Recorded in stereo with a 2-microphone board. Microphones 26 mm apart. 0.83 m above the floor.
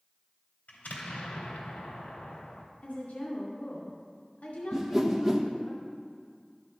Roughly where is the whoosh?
Centre.